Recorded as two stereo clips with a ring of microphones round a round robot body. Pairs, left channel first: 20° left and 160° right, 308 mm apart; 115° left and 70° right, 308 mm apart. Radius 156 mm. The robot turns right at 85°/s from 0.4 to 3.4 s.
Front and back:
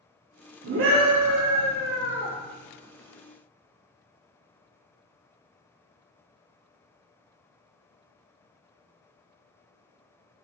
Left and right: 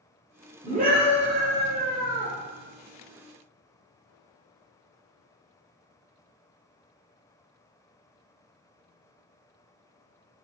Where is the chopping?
I don't hear chopping.